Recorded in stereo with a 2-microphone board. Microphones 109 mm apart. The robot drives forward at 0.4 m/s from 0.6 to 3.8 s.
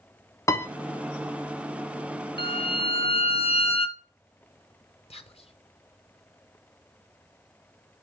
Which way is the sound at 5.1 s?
65° left (ahead or behind).